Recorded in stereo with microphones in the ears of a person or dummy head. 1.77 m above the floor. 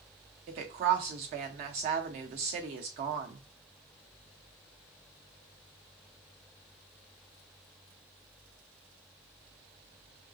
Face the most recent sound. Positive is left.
turn(degrees=-35)  # may be behind; listen again after turning